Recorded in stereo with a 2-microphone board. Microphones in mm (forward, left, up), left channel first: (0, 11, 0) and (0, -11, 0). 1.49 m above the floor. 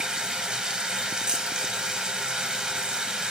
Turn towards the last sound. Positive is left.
turn(degrees=-40)  # may be behind; listen again after turning